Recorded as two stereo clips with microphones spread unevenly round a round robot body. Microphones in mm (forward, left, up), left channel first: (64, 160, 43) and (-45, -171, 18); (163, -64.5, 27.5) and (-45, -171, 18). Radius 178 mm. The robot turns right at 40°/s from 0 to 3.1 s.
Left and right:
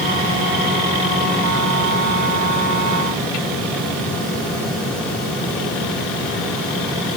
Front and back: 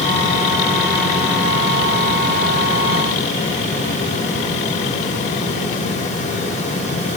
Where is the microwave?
I don't hear a microwave.